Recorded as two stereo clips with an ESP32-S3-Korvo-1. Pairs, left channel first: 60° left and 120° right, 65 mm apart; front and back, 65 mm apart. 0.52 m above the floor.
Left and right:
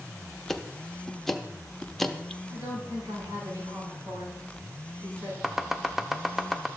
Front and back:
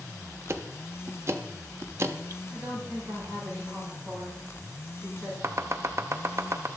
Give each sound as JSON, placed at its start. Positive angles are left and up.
{"t": 0.5, "sound": "ticking", "azimuth_deg": 145, "distance_m": 0.6}
{"t": 2.5, "sound": "a woman speaking", "azimuth_deg": -115, "distance_m": 5.5}
{"t": 5.4, "sound": "chopping", "azimuth_deg": 155, "distance_m": 0.6}